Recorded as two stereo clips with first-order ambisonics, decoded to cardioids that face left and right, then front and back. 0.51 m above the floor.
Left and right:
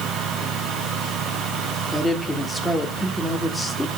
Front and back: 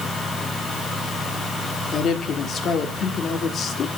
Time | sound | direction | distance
1.9 | a woman speaking | 10° left | 1.2 m